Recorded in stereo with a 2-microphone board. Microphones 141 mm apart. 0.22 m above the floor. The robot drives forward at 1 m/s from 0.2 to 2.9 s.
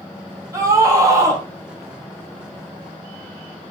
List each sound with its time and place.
0.5 s a scream: 25° right (ahead or behind), 6.5 m